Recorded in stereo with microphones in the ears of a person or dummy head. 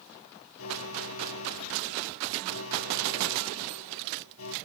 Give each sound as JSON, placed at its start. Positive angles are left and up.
{"t": 0.6, "sound": "an alarm", "side_deg": 85}